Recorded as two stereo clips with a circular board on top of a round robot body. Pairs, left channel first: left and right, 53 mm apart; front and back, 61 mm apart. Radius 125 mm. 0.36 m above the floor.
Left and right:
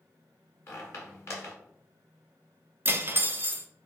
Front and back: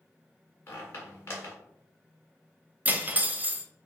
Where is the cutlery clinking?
125° right, 0.6 m.